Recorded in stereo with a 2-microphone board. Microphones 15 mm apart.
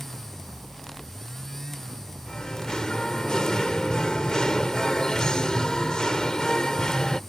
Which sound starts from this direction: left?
Singing, at 2.3 s.